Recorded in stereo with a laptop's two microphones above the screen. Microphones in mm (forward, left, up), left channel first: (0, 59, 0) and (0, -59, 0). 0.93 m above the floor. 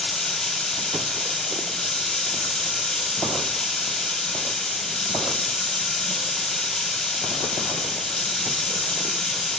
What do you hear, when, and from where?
0.0 s running water: 5° left (ahead or behind), 2 m